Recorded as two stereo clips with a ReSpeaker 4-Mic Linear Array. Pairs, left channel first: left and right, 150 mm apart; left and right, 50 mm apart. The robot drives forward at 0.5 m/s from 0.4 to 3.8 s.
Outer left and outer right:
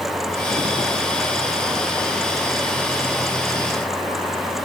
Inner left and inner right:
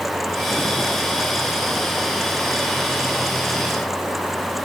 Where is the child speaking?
I don't hear a child speaking.